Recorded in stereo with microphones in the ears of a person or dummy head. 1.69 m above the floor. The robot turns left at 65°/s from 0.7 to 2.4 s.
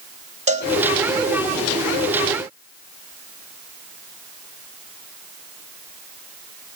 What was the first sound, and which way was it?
A cowbell, 40° right (ahead or behind).